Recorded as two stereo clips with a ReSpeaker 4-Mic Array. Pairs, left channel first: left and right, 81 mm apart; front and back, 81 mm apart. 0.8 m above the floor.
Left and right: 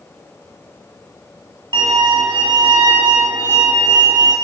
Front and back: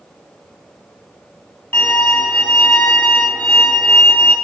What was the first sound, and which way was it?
A violin, 65° right.